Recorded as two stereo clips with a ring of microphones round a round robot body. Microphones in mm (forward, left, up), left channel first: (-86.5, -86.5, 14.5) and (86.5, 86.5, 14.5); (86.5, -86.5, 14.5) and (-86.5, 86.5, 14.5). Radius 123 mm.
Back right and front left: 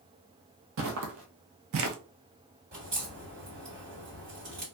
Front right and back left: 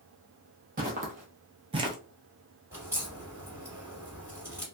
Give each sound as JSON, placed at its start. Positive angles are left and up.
{"t": 0.8, "sound": "footsteps", "azimuth_deg": 80, "distance_m": 1.0}
{"t": 2.7, "sound": "a crack", "azimuth_deg": 60, "distance_m": 2.0}